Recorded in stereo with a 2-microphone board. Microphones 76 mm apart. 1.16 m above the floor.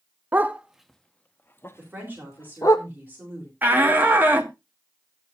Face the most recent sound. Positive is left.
turn(degrees=-25)  # may be behind; listen again after turning